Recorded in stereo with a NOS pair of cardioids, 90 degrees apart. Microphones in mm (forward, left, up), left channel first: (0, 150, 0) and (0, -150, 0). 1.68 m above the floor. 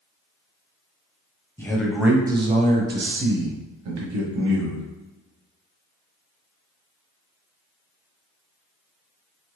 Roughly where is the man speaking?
Ahead.